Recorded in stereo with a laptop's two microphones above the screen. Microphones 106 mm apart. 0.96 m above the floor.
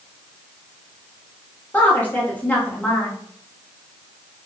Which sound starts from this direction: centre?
A woman speaking, at 1.7 s.